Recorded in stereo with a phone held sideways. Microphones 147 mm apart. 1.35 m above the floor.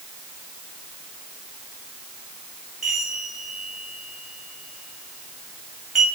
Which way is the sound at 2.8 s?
Centre (ahead or behind).